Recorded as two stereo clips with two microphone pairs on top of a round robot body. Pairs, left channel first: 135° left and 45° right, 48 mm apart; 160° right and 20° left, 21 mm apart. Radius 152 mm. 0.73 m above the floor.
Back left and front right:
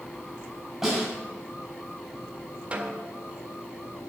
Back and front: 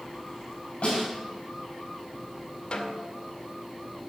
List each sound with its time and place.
0.8 s a snare drum: 120° right, 5.5 m
2.7 s a snare drum: 110° right, 0.8 m